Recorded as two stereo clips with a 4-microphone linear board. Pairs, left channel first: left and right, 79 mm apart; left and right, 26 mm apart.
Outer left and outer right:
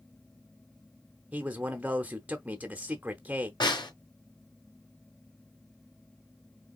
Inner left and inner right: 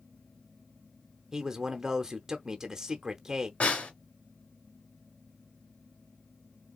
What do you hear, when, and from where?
1.3 s a man speaking: 20° right (ahead or behind), 0.8 m
3.6 s a snare drum: 70° left (ahead or behind), 3 m